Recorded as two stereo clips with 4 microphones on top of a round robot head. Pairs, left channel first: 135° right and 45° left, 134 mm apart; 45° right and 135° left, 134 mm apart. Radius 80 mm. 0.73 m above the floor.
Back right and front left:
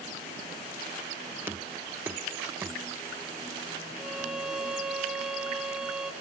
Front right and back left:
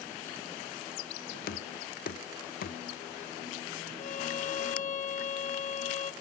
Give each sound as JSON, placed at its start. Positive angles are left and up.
{"t": 1.5, "sound": "knocking", "azimuth_deg": -35, "distance_m": 0.7}
{"t": 4.0, "sound": "a violin", "azimuth_deg": -40, "distance_m": 1.2}